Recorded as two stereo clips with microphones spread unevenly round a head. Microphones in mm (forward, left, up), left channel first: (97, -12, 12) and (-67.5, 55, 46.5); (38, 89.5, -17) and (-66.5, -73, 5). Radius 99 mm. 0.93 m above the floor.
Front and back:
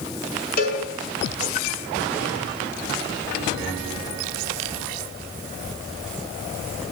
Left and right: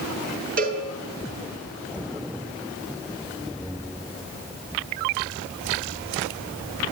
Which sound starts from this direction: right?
A cowbell, at 0.6 s.